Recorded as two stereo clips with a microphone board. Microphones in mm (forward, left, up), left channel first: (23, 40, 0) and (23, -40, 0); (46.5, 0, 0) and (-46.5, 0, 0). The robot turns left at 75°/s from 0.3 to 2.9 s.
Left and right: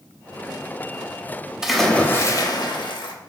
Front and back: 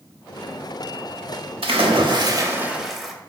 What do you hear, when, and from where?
1.6 s a splash: 170° right, 0.6 m; by 3.1 s 90° left, 0.6 m